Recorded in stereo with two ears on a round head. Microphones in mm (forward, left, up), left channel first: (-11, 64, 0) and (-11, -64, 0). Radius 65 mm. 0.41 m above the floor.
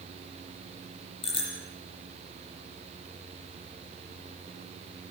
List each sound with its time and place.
1.2 s a bicycle bell: 40° left (ahead or behind), 9 m